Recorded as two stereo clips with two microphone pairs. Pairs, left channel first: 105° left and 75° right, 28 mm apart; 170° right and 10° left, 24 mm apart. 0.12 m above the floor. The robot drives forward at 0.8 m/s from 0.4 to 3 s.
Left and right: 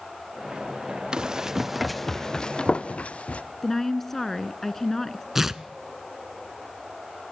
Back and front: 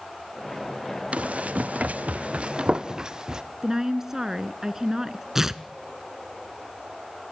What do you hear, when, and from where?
1.1 s running footsteps: 15° right, 1.6 m; by 3.4 s 70° left, 1.8 m
3.6 s a woman speaking: 45° left, 1.2 m
5.3 s tearing paper: 30° right, 0.6 m